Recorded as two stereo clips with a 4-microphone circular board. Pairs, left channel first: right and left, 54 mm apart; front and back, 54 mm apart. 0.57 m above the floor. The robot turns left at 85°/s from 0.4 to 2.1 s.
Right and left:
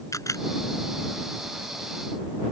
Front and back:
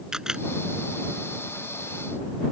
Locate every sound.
0.1 s a camera shutter: 105° right